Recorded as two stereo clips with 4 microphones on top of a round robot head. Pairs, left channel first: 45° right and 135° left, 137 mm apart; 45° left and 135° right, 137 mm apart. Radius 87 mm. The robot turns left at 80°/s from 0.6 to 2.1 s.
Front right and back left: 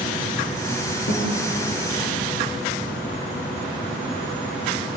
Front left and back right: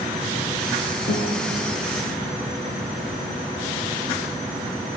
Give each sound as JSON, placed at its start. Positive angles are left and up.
{"t": 1.1, "sound": "a guitar", "azimuth_deg": -10, "distance_m": 9.5}